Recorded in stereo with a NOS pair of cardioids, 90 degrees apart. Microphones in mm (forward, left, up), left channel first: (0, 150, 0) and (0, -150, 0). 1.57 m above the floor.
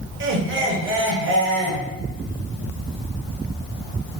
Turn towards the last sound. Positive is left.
turn(degrees=-40)